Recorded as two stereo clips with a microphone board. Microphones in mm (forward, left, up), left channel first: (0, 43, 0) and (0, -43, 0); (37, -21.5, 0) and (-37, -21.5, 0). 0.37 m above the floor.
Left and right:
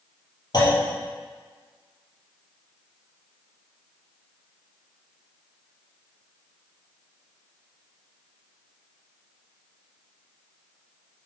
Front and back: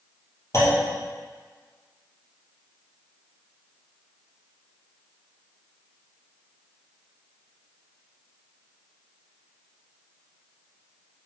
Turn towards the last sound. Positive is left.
turn(degrees=50)